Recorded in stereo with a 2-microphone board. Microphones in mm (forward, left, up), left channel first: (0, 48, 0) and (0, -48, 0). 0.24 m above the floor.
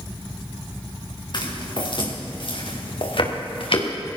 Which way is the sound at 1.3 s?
50° left (ahead or behind).